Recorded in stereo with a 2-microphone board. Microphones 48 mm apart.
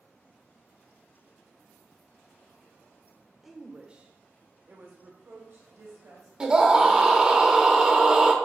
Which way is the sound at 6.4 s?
20° right (ahead or behind).